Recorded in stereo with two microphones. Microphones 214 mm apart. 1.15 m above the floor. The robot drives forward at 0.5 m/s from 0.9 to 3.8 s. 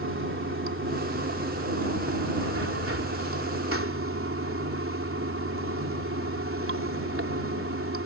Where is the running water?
70° right (ahead or behind); by 8.1 s 80° right.